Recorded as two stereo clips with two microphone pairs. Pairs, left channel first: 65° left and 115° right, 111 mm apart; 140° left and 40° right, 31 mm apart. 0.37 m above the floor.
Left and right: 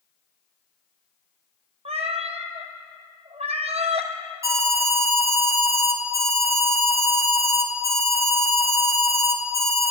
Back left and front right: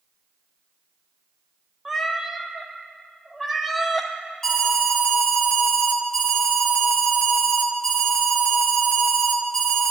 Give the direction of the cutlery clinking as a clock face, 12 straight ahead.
I don't hear cutlery clinking.